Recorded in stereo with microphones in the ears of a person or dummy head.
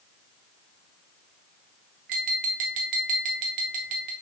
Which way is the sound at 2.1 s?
40° right (ahead or behind).